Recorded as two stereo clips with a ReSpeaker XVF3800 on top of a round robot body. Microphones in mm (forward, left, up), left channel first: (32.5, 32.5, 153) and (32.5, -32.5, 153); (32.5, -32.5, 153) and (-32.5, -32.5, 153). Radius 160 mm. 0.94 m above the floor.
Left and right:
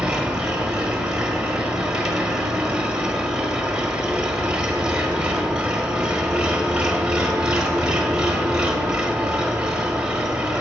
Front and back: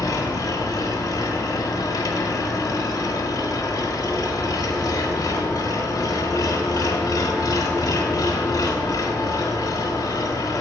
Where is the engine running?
15° right, 1.0 m.